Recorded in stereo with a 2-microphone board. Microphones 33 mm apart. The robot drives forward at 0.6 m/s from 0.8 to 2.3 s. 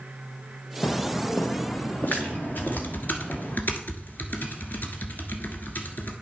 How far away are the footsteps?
About 0.7 m.